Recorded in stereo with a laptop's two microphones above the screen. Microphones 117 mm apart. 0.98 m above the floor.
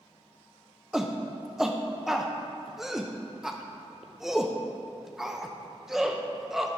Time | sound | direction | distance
0.9 | a shout | 5° right (ahead or behind) | 0.6 m